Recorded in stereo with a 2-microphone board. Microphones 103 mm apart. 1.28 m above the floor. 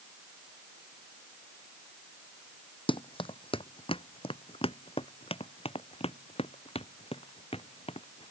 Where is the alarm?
No alarm in this recording.